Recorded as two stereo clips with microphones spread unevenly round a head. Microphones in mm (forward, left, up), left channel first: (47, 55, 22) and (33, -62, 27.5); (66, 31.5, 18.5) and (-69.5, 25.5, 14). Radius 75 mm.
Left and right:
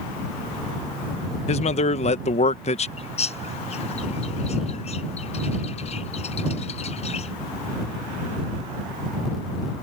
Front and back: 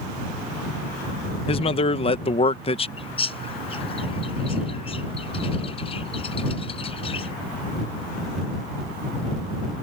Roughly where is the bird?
Ahead left.